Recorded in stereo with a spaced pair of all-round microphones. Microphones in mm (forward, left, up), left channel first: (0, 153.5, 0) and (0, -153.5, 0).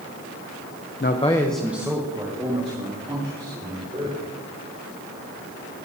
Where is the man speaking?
40° left (ahead or behind), 0.6 m; by 4.2 s 25° right (ahead or behind), 4.5 m.